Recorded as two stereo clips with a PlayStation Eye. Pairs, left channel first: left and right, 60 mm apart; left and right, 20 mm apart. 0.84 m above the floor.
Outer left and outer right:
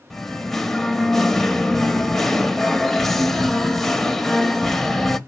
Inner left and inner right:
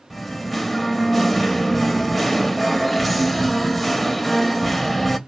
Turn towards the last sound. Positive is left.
turn(degrees=5)  # may be behind; listen again after turning